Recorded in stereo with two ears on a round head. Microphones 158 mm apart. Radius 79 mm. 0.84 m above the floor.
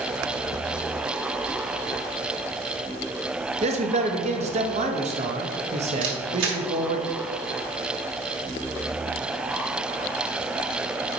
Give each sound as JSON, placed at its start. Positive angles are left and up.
{"t": 3.6, "sound": "a man speaking", "side_deg": -40, "distance_m": 0.9}
{"t": 6.0, "sound": "a camera shutter", "side_deg": -80, "distance_m": 1.5}